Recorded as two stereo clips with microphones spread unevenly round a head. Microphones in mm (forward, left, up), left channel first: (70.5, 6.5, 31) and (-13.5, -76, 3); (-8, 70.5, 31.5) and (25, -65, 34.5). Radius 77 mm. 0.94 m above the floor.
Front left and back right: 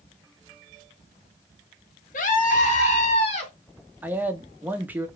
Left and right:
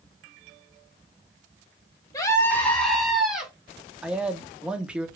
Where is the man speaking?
155° right, 0.8 m.